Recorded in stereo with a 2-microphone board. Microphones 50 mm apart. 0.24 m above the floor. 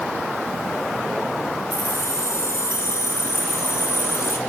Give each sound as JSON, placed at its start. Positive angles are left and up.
{"t": 1.7, "sound": "keys jangling", "side_deg": 65, "distance_m": 2.5}